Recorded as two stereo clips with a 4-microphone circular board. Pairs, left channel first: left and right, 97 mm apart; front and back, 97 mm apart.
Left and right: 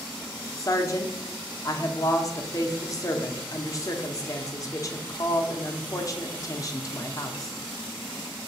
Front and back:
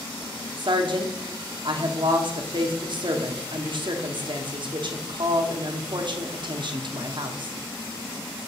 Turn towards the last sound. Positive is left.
turn(degrees=145)